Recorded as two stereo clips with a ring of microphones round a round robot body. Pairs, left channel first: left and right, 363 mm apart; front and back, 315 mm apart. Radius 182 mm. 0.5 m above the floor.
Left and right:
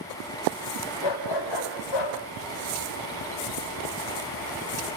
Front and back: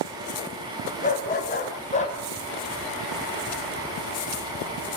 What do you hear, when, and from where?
1.0 s a dog barking: 65° left, 7.5 m; by 2.2 s 70° left, 7 m